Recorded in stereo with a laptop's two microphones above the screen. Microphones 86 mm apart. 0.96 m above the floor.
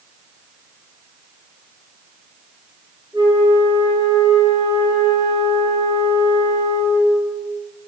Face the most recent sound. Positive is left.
turn(degrees=-75)  # may be behind; listen again after turning